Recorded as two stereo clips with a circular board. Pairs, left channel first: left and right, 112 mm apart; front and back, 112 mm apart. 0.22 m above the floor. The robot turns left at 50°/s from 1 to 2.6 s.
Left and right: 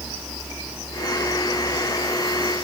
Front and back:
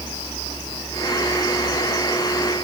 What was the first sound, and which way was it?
Only background noise.